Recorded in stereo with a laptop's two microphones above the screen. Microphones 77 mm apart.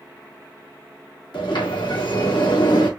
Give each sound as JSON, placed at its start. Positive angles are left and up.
{"t": 1.3, "sound": "a sliding door", "side_deg": 80, "distance_m": 1.8}